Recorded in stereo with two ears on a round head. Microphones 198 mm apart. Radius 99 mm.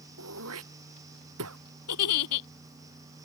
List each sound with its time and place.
0.2 s throat clearing: 70° right (ahead or behind)
1.9 s a giggle: 80° left